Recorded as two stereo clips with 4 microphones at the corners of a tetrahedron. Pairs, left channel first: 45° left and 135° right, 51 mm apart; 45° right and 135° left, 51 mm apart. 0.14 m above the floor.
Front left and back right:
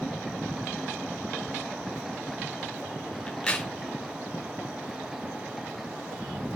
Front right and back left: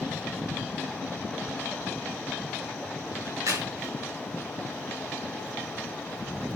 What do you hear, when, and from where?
3.3 s a crack: 120° left, 5.5 m